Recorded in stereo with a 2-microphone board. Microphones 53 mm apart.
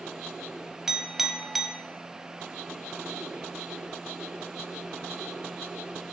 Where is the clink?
5° right (ahead or behind), 0.8 m.